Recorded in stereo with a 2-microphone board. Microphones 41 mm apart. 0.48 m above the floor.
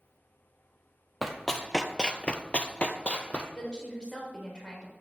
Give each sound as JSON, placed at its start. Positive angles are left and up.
{"t": 1.2, "sound": "running footsteps", "side_deg": 0, "distance_m": 0.8}
{"t": 3.5, "sound": "a woman speaking", "side_deg": 25, "distance_m": 2.0}